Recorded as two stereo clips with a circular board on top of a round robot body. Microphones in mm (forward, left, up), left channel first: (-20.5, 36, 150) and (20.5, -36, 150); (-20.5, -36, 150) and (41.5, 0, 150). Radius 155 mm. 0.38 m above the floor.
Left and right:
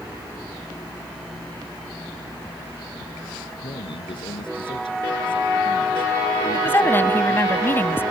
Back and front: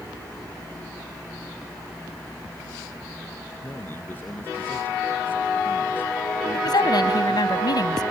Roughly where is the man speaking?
Behind left.